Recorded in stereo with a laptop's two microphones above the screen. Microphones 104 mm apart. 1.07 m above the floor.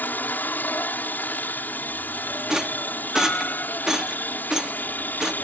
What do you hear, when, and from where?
0.0 s a helicopter: 15° left (ahead or behind)
2.5 s a rattle: 5° right (ahead or behind)